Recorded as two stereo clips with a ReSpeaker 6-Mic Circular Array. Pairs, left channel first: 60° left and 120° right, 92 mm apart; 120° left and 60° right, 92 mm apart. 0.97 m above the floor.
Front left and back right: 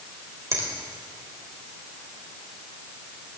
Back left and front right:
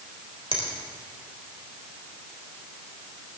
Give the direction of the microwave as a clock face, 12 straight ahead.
No microwave in this recording.